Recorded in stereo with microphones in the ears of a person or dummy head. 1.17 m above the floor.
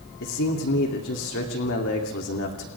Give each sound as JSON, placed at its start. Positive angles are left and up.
{"t": 0.2, "sound": "a man speaking", "side_deg": 65, "distance_m": 3.0}